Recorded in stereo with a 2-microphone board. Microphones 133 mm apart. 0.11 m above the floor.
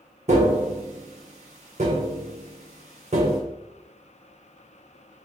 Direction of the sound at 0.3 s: 55° right (ahead or behind).